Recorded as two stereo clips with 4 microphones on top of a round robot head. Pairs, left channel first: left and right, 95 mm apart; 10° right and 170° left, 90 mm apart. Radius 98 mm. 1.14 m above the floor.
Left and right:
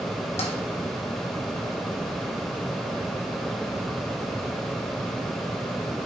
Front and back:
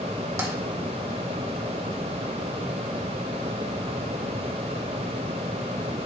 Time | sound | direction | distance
0.4 | tapping | 110° left | 1.8 m